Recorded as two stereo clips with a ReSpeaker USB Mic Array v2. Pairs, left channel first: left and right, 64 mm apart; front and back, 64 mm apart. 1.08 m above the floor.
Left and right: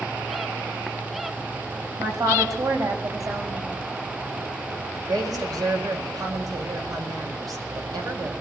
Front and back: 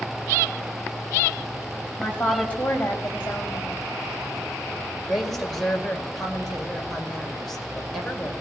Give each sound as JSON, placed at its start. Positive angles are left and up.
{"t": 2.0, "sound": "a woman speaking", "azimuth_deg": -70, "distance_m": 4.5}
{"t": 5.0, "sound": "a woman speaking", "azimuth_deg": -85, "distance_m": 5.5}